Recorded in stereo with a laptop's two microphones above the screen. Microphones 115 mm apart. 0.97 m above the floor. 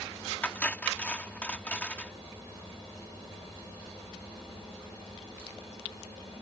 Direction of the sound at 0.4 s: 15° left (ahead or behind).